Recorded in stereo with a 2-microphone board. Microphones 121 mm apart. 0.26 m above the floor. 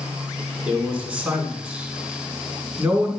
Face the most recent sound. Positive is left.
turn(degrees=-10)  # may be behind; listen again after turning